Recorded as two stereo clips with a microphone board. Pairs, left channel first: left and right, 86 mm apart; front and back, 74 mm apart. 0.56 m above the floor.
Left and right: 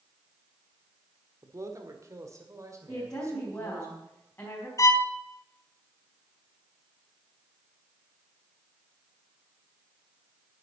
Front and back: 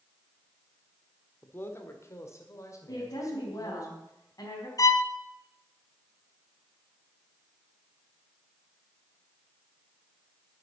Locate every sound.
1.4 s a man speaking: 50° right, 1.6 m; by 3.9 s 35° right, 3.5 m
2.9 s a woman speaking: 30° left, 4 m
4.8 s a violin: 40° left, 0.8 m